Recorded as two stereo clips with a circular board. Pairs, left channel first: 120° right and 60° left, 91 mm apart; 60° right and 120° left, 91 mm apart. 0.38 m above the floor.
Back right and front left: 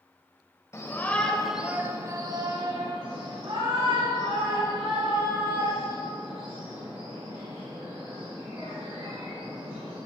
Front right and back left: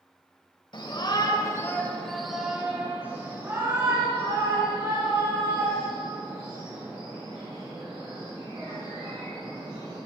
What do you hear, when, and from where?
0.7 s a shout: 65° right, 1.6 m; by 10.0 s 70° left, 10 m